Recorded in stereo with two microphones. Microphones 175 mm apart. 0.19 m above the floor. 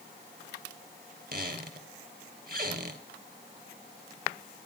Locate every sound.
1.3 s a squeak: 55° right (ahead or behind), 2 m